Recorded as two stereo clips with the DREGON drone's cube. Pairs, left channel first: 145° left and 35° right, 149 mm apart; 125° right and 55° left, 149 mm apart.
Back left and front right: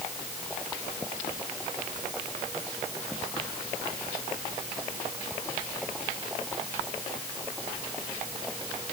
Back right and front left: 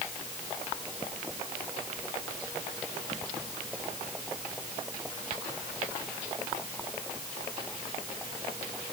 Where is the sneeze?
I don't hear a sneeze.